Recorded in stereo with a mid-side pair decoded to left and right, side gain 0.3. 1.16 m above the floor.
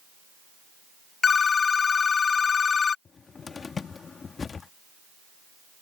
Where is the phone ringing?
60° left.